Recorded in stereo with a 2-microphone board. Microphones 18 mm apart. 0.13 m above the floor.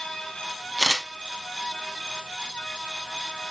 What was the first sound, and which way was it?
A camera shutter, 20° left (ahead or behind).